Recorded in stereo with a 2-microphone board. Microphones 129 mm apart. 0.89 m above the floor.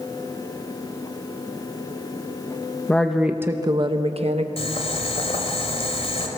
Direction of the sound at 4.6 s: 50° left (ahead or behind).